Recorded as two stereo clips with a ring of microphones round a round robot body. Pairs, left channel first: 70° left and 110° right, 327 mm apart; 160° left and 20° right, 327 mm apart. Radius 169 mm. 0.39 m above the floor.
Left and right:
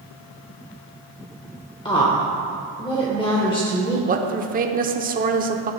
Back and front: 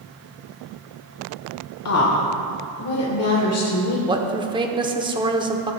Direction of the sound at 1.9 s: 140° left.